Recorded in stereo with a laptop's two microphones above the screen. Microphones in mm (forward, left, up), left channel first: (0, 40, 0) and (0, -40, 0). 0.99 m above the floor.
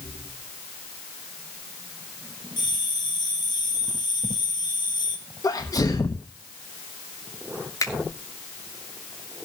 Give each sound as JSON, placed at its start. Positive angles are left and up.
{"t": 2.6, "sound": "a bell", "side_deg": 65, "distance_m": 4.0}
{"t": 5.4, "sound": "a sneeze", "side_deg": 50, "distance_m": 1.2}
{"t": 7.8, "sound": "a finger snap", "side_deg": 45, "distance_m": 2.5}